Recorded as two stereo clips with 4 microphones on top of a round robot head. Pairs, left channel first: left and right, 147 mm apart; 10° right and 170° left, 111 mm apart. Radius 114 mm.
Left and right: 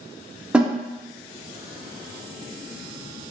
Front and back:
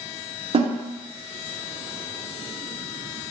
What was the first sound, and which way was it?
A snare drum, 175° right.